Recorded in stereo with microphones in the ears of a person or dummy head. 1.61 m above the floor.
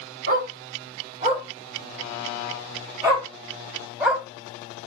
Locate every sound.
0.3 s a dog barking: 50° right (ahead or behind), 1.6 m; by 4.2 s 10° right (ahead or behind), 3 m